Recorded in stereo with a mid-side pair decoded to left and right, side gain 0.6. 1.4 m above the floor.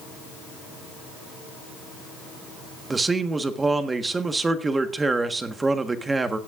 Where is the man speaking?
20° right, 1.3 m.